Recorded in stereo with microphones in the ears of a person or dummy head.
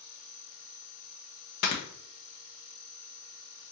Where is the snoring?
55° left (ahead or behind), 0.8 m.